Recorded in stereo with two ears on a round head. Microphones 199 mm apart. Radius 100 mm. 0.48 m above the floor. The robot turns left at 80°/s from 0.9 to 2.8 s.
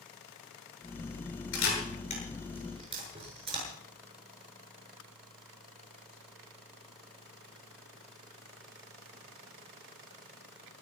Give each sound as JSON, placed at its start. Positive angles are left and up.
{"t": 1.5, "sound": "a camera shutter", "side_deg": 70, "distance_m": 7.0}